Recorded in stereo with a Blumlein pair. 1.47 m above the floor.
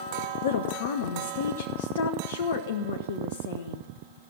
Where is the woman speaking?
60° left, 0.8 m.